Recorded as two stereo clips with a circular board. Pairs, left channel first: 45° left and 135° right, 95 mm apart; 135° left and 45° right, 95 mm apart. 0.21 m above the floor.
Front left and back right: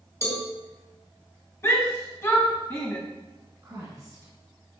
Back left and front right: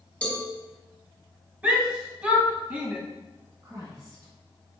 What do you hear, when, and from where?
0.2 s a cowbell: 65° left, 1.9 m
1.6 s a shout: 15° left, 1.1 m
3.6 s a woman speaking: 95° right, 1.9 m